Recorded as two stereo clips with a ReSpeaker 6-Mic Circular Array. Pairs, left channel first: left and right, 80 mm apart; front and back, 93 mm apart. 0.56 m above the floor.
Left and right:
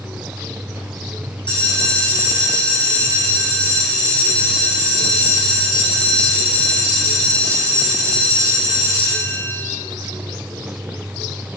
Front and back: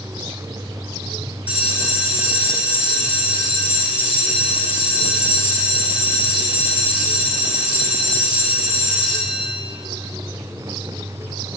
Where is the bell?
105° left, 6.5 m.